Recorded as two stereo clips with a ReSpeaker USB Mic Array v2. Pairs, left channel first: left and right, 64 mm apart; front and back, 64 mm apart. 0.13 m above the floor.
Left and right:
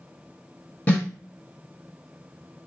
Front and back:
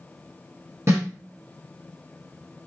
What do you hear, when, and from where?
0.9 s a snare drum: 150° left, 1.5 m